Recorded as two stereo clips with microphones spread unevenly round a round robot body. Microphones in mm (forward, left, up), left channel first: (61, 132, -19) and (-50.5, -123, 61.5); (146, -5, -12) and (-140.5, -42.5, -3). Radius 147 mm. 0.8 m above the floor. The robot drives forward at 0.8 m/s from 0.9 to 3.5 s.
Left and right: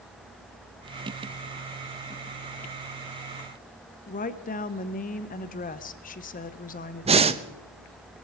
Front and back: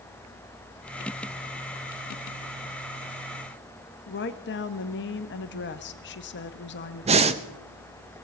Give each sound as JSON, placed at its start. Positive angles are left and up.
{"t": 4.1, "sound": "a woman speaking", "azimuth_deg": 45, "distance_m": 1.0}
{"t": 7.0, "sound": "breathing", "azimuth_deg": 165, "distance_m": 0.7}